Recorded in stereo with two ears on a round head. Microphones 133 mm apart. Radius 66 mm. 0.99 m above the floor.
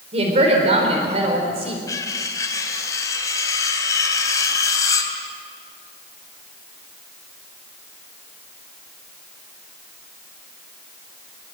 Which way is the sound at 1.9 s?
20° left (ahead or behind).